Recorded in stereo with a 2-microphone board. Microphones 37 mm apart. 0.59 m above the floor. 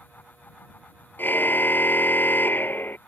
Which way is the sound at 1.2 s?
60° left (ahead or behind).